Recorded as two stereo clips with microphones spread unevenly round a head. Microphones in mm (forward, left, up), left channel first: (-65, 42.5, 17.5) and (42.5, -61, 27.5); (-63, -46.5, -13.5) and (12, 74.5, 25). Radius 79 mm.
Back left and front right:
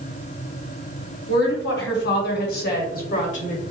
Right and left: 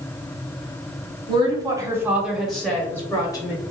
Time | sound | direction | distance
1.3 | a woman speaking | 115° left | 1.2 m